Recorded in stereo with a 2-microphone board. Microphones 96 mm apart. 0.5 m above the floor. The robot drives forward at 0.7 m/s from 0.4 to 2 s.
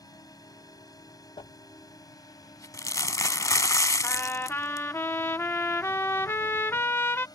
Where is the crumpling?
60° left (ahead or behind); by 4.9 s 35° left (ahead or behind).